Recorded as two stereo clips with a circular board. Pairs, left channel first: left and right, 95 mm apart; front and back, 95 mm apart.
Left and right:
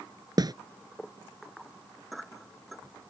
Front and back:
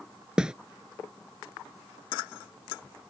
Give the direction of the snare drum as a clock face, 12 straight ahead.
3 o'clock.